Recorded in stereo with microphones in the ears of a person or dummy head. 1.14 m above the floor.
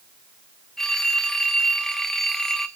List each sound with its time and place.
0.8 s a phone ringing: centre (ahead or behind), 1.1 m